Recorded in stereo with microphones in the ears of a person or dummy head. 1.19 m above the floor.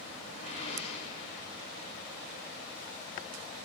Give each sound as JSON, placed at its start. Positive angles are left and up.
{"t": 0.4, "sound": "a whoosh", "side_deg": 40, "distance_m": 1.8}